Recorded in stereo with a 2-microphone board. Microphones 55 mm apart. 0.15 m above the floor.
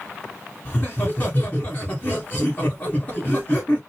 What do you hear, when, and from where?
0.7 s laughter: 25° left (ahead or behind), 1.3 m